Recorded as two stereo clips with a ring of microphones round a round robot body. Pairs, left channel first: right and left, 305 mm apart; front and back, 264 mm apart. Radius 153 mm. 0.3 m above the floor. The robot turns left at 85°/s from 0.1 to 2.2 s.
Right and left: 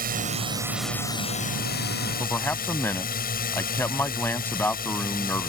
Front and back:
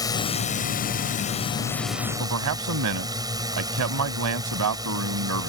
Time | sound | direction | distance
0.0 | a drone | 65° left | ?
2.2 | a man speaking | 175° right | ?